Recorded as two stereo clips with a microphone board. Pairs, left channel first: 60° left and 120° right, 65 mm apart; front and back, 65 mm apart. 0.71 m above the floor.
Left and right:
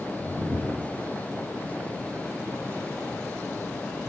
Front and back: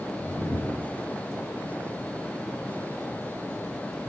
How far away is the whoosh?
About 2.5 m.